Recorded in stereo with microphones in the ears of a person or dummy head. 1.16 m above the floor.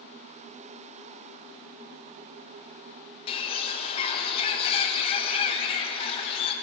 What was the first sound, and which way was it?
A bird, 30° left (ahead or behind).